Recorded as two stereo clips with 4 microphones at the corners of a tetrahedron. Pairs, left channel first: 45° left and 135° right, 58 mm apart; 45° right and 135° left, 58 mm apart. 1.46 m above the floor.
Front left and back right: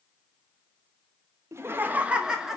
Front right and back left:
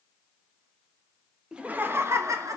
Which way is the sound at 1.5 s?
155° right.